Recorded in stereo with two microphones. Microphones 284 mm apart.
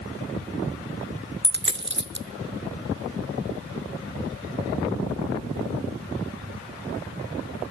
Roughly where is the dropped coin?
Right.